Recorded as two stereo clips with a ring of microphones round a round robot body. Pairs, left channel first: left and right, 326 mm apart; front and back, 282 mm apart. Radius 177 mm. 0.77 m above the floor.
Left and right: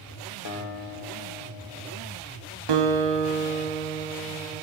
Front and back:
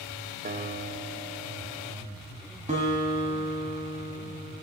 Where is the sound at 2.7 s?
110° right, 1.2 m.